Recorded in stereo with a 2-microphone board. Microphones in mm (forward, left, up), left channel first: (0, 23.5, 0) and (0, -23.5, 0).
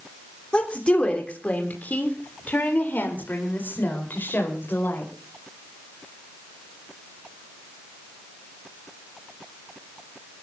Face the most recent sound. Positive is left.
turn(degrees=55)  # may be behind; listen again after turning